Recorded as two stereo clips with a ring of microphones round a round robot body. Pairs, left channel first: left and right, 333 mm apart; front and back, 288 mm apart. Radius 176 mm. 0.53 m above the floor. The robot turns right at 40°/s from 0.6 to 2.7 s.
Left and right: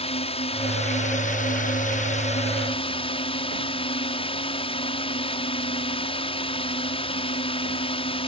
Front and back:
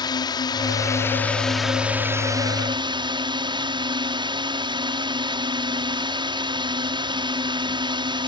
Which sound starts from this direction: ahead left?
A drone, at 0.0 s.